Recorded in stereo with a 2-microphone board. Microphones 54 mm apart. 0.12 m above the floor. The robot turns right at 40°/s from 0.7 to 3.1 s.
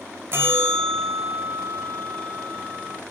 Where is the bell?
135° right, 1.3 m; by 3.0 s 45° right, 1.3 m.